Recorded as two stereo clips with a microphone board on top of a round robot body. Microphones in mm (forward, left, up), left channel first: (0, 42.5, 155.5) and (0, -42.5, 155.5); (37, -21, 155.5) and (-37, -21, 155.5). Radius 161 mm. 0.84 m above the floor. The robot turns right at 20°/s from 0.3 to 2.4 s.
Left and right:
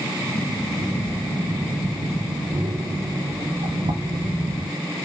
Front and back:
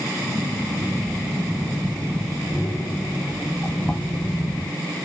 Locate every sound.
0.8 s breathing: 110° right, 1.9 m; by 4.7 s 75° right, 1.9 m